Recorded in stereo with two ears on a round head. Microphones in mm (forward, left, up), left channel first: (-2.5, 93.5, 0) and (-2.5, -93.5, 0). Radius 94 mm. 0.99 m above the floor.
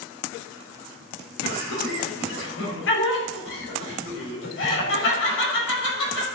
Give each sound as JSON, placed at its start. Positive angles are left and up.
{"t": 1.4, "sound": "laughter", "side_deg": 60, "distance_m": 4.5}